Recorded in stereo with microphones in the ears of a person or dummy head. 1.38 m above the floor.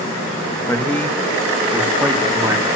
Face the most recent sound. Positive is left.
turn(degrees=-15)  # may be behind; listen again after turning